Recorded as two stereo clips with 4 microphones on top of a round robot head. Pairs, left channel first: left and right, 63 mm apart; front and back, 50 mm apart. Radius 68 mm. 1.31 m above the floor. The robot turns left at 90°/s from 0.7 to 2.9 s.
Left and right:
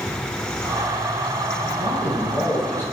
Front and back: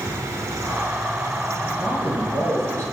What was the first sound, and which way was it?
A man speaking, 100° right.